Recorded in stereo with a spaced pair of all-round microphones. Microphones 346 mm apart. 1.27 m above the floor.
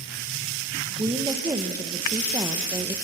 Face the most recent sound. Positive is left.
turn(degrees=-10)  # may be behind; listen again after turning